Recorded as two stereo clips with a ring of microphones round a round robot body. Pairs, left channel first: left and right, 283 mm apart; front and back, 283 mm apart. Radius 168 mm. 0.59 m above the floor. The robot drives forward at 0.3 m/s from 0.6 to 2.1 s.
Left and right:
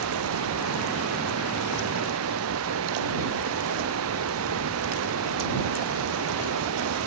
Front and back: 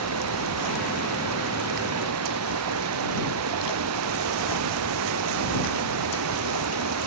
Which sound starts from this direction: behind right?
Running water, at 0.0 s.